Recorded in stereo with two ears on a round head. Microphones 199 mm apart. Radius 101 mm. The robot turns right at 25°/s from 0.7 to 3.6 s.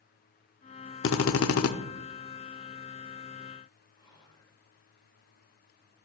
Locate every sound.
1.0 s a drill: 60° left (ahead or behind), 0.6 m; by 1.7 s 70° left (ahead or behind), 0.6 m
4.0 s whispering: 20° left (ahead or behind), 2.5 m